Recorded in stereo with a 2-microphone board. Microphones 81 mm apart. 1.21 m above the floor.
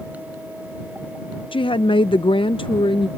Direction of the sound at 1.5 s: 80° left.